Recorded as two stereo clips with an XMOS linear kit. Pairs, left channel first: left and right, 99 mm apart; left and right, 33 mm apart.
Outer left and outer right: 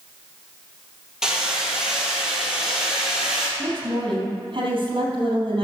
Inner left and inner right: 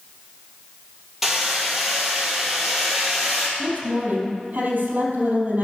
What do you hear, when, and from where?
1.2 s hammering: 5° right (ahead or behind), 3 m
3.6 s a woman speaking: 55° right (ahead or behind), 3.5 m